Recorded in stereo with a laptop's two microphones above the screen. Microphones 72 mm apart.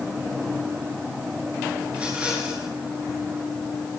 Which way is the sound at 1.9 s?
20° right (ahead or behind).